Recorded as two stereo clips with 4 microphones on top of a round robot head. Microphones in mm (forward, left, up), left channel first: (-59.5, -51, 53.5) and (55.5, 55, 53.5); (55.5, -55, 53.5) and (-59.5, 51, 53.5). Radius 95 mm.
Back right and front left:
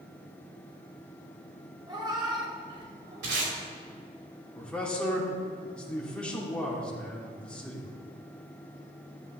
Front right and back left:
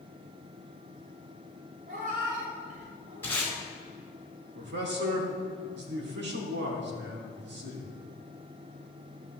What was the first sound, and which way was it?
A cat meowing, 105° left.